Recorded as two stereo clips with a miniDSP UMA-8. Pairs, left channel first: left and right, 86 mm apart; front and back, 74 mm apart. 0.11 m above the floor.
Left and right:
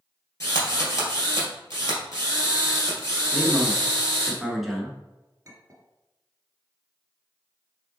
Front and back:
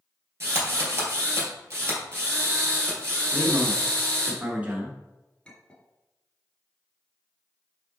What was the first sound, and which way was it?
A drill, 135° left.